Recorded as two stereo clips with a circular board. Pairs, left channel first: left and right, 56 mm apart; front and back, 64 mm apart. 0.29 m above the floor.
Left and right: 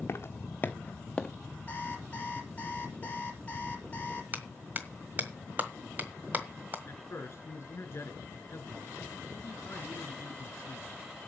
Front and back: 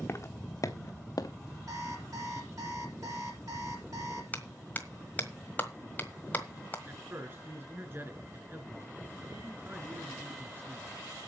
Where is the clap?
50° right, 1.4 m.